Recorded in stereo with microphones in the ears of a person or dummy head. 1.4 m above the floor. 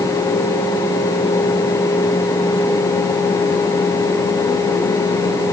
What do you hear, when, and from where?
Only background noise.